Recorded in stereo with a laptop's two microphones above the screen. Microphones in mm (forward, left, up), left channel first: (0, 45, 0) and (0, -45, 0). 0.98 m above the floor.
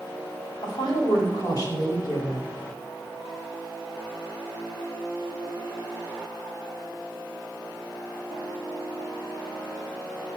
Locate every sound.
0.6 s a woman speaking: 55° left (ahead or behind), 2.5 m; by 2.5 s 35° left (ahead or behind), 2.5 m